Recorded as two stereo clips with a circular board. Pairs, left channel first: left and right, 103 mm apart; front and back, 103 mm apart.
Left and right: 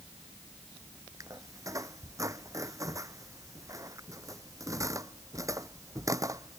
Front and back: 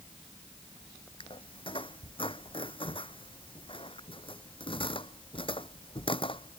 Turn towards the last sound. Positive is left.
turn(degrees=-30)